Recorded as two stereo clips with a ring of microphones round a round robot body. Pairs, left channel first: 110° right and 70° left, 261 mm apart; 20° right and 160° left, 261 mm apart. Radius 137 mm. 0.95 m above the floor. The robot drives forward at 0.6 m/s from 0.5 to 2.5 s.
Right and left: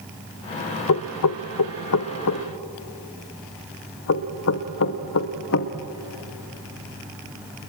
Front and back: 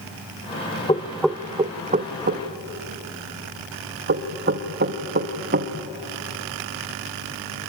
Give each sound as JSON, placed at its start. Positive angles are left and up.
{"t": 0.9, "sound": "knocking", "azimuth_deg": -95, "distance_m": 0.6}